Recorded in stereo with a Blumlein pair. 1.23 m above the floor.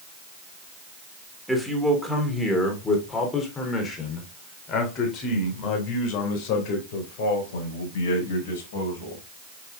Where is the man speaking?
Straight ahead, 3.5 m; by 9.2 s 55° left, 5.5 m.